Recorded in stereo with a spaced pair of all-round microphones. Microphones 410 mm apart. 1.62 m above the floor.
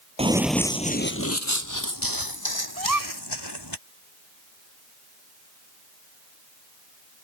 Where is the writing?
No writing in this recording.